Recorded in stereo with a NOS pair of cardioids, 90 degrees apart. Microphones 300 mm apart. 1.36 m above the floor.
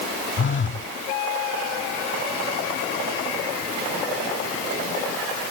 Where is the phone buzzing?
40° left.